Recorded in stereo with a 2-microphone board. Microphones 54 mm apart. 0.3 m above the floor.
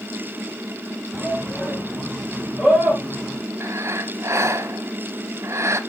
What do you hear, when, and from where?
1.1 s a shout: centre (ahead or behind), 4 m; by 3.4 s 20° right (ahead or behind), 5 m
3.6 s breathing: 60° right (ahead or behind), 0.9 m